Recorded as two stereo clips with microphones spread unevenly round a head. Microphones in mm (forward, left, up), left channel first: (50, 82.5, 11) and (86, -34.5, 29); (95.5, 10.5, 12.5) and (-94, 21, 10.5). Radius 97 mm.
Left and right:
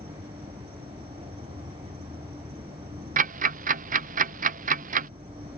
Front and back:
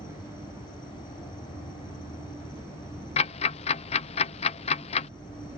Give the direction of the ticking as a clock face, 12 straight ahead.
2 o'clock.